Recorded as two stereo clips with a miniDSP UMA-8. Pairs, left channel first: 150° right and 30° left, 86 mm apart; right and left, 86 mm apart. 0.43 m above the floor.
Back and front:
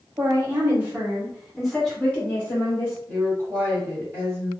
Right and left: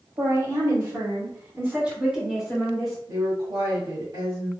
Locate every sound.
0.2 s a woman speaking: 70° left, 1.5 m; by 3.0 s 175° right, 1.3 m
3.1 s a woman speaking: 90° left, 1.5 m